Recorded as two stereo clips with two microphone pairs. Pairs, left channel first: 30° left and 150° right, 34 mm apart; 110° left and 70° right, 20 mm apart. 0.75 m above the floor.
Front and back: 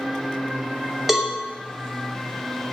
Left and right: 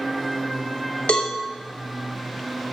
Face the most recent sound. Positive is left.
turn(degrees=130)